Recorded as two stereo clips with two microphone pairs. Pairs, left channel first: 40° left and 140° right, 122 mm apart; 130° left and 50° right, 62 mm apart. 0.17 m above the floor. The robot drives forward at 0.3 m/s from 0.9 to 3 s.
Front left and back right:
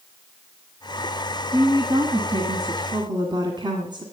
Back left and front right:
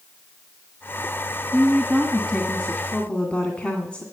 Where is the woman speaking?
160° right, 1.7 m; by 4.0 s 165° right, 1.9 m.